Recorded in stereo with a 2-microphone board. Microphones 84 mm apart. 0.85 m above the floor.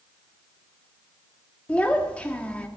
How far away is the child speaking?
About 1.4 m.